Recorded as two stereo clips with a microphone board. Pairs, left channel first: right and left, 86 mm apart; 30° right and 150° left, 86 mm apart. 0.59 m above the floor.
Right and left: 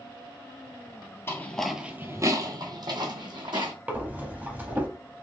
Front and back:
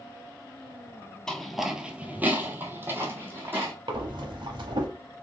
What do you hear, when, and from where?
1.3 s footsteps: 105° right, 0.6 m; by 3.7 s 85° left, 1.6 m
3.9 s breathing: 160° left, 0.7 m